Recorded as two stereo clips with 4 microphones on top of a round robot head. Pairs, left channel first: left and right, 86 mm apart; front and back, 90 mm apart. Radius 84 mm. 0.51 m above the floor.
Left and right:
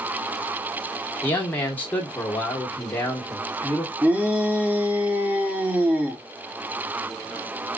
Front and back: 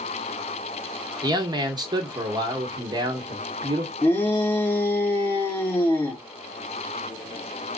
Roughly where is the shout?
Ahead right.